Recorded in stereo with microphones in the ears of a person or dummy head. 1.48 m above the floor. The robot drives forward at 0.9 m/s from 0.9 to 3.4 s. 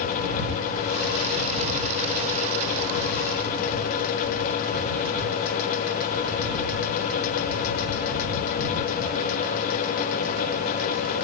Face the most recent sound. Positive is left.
No sound to turn to.